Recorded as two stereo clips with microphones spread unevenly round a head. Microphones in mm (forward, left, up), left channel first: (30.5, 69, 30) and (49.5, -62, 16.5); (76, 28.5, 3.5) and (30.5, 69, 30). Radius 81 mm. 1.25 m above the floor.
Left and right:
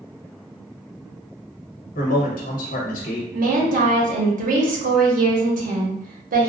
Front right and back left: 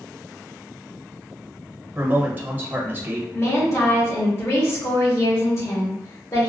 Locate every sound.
1.9 s a man speaking: 80° left, 1.2 m
3.3 s a woman speaking: 80° right, 1.2 m